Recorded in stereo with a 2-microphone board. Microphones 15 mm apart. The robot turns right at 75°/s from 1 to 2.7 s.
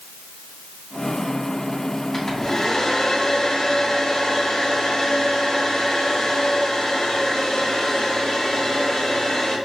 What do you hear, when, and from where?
2.1 s a hair dryer: 20° left, 1.0 m; by 9.6 s 60° left, 1.0 m